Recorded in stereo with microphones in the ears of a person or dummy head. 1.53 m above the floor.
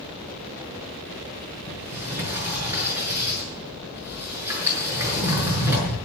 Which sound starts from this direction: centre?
A sliding door, at 1.7 s.